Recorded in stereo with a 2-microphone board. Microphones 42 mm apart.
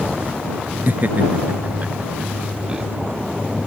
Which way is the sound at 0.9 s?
45° right (ahead or behind).